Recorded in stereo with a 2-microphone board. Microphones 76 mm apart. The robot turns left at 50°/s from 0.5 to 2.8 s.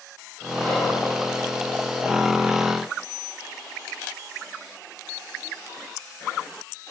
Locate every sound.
0.6 s whispering: 15° left (ahead or behind), 1.2 m; by 1.0 s 5° left (ahead or behind), 1.2 m